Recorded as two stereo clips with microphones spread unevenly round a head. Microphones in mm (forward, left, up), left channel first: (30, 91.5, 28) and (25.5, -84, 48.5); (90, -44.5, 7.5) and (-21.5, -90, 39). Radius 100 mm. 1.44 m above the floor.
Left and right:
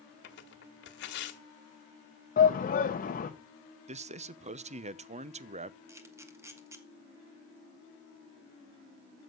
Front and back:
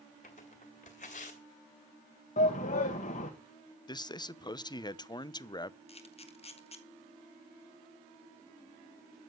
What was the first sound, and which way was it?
Tearing paper, 75° left.